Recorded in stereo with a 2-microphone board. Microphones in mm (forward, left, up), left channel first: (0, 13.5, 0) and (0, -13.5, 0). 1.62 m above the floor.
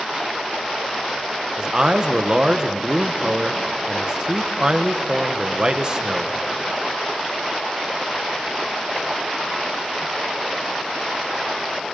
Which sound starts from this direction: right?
A man speaking, at 1.6 s.